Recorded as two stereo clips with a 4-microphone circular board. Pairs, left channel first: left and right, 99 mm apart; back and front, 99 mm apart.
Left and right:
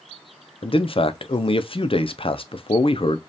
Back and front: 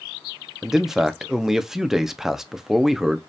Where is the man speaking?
85° left, 0.5 m.